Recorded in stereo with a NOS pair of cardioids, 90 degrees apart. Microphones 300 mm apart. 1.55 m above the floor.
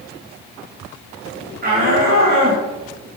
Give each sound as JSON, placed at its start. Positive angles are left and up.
{"t": 1.6, "sound": "a shout", "azimuth_deg": -30, "distance_m": 6.5}